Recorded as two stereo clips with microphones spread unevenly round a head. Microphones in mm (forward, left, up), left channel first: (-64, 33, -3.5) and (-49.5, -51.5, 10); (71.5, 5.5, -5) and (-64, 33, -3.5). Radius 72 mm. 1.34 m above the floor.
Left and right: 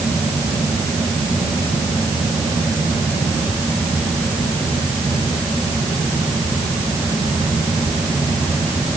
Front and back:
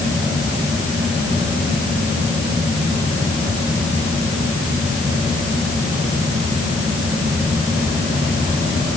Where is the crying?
I don't hear crying.